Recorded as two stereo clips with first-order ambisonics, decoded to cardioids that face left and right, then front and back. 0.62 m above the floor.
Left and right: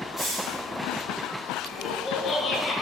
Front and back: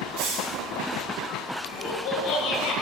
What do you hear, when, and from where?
0.2 s a hiss: 165° left, 2.5 m
1.7 s laughter: 35° left, 1.2 m